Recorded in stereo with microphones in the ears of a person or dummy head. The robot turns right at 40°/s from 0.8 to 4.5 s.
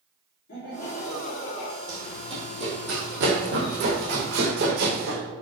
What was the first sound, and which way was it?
Laughter, 130° left.